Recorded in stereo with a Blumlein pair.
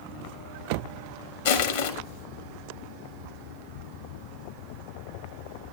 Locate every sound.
1.4 s crushing: 60° left, 2 m